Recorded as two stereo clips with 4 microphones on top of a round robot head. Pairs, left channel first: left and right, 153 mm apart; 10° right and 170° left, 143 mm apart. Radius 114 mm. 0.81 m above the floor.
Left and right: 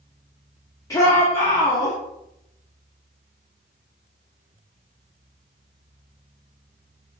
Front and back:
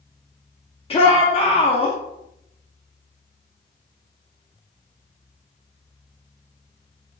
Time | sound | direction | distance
0.9 | a shout | 25° left | 0.5 m